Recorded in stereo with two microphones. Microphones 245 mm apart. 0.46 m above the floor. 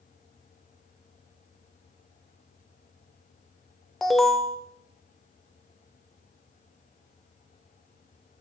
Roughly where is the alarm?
Centre.